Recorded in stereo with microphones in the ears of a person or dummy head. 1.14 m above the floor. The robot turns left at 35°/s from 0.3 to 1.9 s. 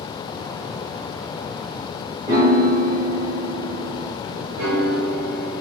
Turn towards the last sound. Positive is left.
turn(degrees=-65)  # may be behind; listen again after turning